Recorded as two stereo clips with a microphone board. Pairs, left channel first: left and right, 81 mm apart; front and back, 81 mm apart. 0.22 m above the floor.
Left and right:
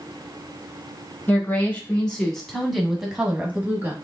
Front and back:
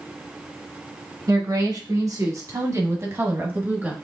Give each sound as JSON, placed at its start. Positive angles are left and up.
{"t": 1.3, "sound": "a woman speaking", "azimuth_deg": 155, "distance_m": 2.0}